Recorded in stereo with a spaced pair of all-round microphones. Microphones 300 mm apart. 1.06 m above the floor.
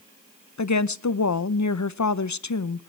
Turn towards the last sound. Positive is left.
turn(degrees=70)  # may be behind; listen again after turning